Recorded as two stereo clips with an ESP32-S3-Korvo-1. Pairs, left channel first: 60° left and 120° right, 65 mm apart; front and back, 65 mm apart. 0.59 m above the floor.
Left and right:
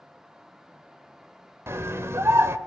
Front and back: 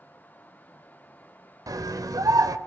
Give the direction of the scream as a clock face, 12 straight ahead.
6 o'clock.